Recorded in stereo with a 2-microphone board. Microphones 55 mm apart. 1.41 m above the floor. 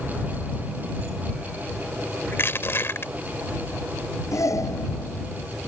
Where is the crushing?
50° left (ahead or behind).